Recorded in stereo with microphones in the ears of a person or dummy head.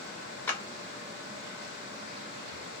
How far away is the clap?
About 0.6 m.